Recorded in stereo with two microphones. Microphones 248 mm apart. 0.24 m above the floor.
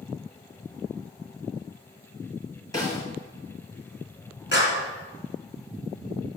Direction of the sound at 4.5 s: 50° left (ahead or behind).